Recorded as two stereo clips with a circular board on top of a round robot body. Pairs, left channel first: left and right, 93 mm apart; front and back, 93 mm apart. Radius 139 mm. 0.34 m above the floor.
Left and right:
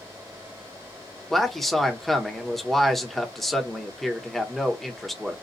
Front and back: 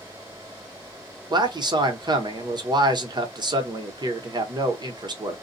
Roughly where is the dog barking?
I don't hear a dog barking.